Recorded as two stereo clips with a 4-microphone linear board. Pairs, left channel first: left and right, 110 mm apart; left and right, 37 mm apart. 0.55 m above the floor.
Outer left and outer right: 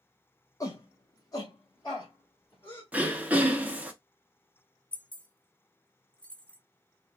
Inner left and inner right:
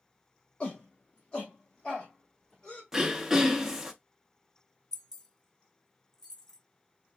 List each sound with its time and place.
0.6 s a shout: 30° left (ahead or behind), 0.9 m; by 2.8 s 40° left (ahead or behind), 1.9 m
2.9 s throat clearing: 15° right (ahead or behind), 0.7 m
4.9 s keys jangling: 10° left (ahead or behind), 0.7 m